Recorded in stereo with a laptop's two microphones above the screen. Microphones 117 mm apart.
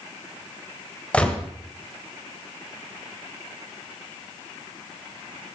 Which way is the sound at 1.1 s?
10° left (ahead or behind).